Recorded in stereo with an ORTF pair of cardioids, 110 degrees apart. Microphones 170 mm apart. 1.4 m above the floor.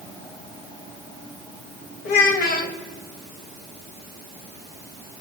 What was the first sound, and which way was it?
A child speaking, 60° left.